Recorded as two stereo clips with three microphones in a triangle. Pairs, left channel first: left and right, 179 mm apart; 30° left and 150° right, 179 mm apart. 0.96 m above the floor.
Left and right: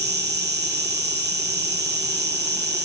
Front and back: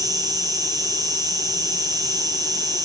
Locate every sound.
0.0 s an insect: 80° right, 0.8 m